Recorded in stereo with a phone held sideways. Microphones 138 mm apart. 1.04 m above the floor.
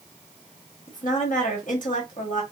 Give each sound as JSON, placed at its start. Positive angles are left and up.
{"t": 0.9, "sound": "a woman speaking", "side_deg": 70, "distance_m": 1.5}